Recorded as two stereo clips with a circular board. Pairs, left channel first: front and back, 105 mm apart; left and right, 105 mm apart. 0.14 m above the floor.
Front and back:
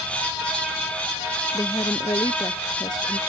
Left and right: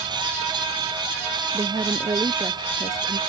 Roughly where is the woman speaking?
Ahead right.